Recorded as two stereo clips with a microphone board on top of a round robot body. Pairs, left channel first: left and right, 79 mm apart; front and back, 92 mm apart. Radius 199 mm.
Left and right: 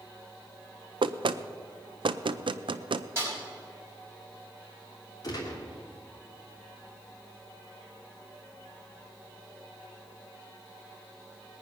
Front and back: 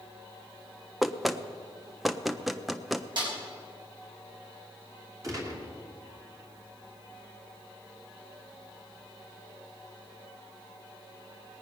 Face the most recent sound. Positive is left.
turn(degrees=125)